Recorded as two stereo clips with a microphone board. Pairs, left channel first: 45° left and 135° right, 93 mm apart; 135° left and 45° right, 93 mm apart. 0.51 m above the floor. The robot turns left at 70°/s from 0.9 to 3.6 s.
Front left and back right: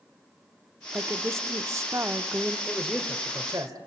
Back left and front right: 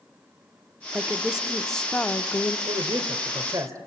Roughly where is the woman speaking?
Right.